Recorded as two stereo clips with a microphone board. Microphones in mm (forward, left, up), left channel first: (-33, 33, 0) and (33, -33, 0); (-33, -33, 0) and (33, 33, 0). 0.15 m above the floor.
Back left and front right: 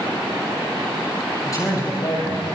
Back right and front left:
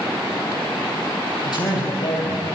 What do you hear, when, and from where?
1.4 s a man speaking: 175° right, 6 m